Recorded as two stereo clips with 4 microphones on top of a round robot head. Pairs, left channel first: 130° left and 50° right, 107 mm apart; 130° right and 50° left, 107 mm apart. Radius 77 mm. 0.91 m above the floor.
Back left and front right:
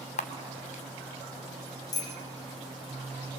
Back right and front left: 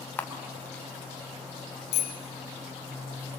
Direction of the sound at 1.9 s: 170° right.